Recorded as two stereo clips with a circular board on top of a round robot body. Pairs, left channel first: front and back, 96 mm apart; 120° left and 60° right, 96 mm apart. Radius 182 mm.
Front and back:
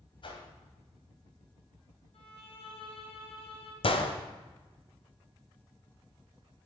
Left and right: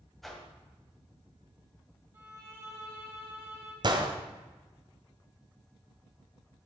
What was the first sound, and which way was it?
A whoosh, 30° left.